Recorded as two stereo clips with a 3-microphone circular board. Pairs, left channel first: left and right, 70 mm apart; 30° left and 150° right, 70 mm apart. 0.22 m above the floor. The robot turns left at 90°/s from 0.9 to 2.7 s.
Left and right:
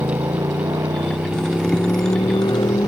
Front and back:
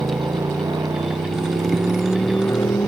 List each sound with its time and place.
0.0 s a motorcycle: 120° right; by 2.9 s 75° left